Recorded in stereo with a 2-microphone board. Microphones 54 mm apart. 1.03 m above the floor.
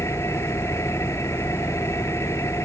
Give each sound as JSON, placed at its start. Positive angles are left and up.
{"t": 0.0, "sound": "an engine running", "side_deg": 55}